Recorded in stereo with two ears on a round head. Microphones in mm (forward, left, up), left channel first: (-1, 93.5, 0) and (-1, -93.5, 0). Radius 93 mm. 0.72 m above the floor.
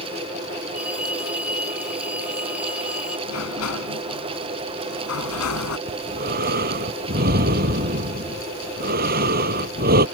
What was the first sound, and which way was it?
A phone ringing, 5° right (ahead or behind).